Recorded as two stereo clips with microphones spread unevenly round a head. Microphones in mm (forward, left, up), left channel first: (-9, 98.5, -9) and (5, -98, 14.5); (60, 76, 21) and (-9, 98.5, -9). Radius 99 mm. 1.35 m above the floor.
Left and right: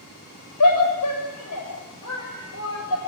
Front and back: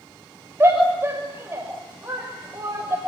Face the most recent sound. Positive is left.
turn(degrees=100)